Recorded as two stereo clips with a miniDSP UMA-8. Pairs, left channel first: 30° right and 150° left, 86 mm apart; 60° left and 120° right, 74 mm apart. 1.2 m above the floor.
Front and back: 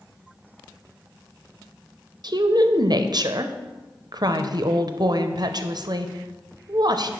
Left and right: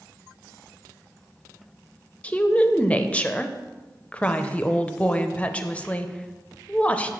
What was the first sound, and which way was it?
A woman speaking, 130° left.